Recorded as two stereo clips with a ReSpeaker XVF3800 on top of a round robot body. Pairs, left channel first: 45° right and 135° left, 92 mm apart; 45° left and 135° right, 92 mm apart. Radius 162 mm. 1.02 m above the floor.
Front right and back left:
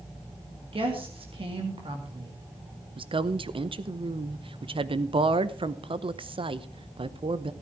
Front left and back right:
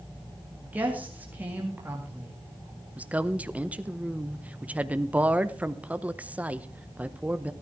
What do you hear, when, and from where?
0.6 s a woman speaking: 155° left, 2 m
3.0 s a woman speaking: 150° left, 0.9 m